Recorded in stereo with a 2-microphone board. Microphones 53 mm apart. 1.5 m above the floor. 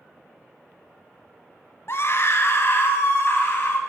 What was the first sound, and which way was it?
A scream, 50° left (ahead or behind).